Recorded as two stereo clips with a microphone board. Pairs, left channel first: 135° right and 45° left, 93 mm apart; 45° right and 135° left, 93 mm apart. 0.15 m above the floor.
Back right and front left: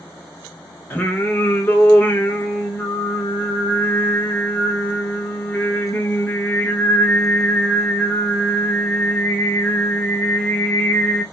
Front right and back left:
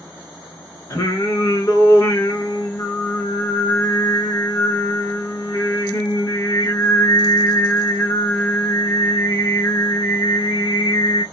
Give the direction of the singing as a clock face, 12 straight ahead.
3 o'clock.